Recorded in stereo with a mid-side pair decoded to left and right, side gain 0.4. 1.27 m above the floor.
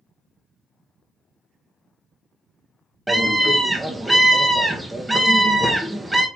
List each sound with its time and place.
3.1 s a scream: 10° right, 1.1 m